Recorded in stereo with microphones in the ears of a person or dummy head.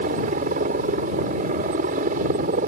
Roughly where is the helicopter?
Right.